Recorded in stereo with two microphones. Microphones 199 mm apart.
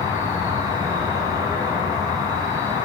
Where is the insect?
20° right (ahead or behind), 2.5 m.